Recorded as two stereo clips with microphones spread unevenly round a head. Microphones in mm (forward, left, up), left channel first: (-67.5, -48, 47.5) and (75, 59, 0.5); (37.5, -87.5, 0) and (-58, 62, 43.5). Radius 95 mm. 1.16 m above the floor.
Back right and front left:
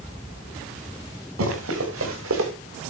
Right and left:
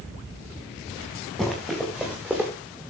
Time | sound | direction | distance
1.4 | running footsteps | 35° left | 7 m